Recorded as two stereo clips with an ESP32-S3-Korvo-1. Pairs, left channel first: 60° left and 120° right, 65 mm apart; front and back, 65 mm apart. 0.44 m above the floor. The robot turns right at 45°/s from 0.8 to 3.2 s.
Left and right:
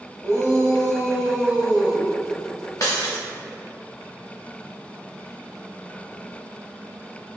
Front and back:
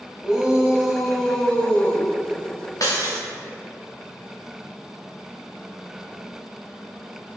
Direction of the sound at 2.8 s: 30° left.